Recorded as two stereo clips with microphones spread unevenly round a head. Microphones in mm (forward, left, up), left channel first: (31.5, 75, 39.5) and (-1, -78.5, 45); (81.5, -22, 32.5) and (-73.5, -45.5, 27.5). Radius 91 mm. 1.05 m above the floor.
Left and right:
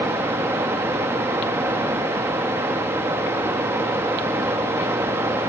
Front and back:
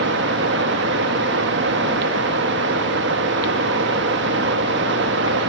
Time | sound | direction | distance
0.0 | running water | straight behind | 1.1 m